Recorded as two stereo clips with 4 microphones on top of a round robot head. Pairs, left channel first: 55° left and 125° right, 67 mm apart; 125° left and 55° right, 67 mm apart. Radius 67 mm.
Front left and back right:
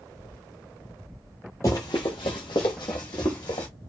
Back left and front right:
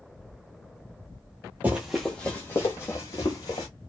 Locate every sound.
1.6 s running footsteps: 15° left, 0.6 m; by 3.7 s 85° left, 1.5 m